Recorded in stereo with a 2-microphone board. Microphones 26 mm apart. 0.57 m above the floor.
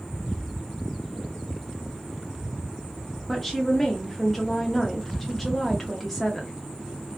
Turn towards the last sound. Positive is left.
turn(degrees=5)  # may be behind; listen again after turning